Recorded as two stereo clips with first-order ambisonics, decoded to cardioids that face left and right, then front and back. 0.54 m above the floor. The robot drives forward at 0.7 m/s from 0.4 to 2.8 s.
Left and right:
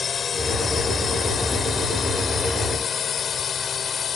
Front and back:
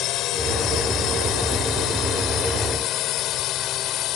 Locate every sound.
0.0 s a drone: 25° left